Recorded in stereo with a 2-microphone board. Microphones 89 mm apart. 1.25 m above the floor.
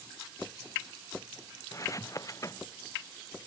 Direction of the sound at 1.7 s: 35° left (ahead or behind).